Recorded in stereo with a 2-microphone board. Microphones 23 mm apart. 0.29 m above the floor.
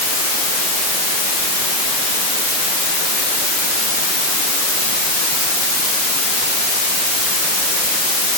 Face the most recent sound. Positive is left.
No sound to turn to.